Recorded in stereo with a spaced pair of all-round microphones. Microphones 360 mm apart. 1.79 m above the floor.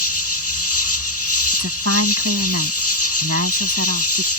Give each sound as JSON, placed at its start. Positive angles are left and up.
{"t": 0.0, "sound": "an insect", "side_deg": 40}
{"t": 1.5, "sound": "a woman speaking", "side_deg": -40}